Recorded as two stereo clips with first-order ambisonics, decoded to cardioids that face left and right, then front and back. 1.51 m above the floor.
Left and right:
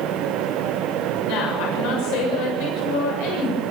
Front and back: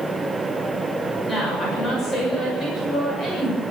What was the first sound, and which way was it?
A woman speaking, 75° left.